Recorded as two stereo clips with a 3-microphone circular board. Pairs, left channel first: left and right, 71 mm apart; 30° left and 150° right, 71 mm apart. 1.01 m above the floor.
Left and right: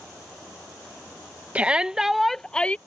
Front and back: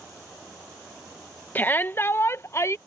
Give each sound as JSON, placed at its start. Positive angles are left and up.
{"t": 1.6, "sound": "a shout", "azimuth_deg": -25}